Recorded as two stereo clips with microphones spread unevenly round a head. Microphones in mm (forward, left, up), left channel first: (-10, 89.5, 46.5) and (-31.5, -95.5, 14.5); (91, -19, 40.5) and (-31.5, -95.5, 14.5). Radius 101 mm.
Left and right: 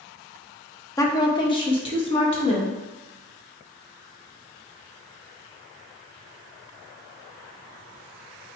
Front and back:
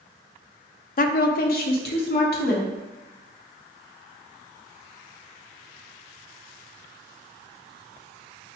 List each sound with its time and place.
1.0 s a woman speaking: 5° left, 0.6 m; by 2.8 s 20° left, 1.5 m